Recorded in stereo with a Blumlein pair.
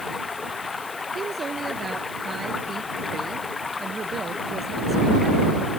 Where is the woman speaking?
15° right.